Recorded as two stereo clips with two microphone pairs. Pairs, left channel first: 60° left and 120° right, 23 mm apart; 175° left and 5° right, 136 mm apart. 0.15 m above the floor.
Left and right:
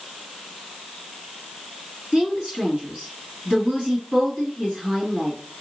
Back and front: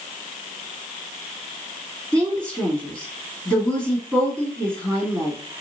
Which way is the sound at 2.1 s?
110° right.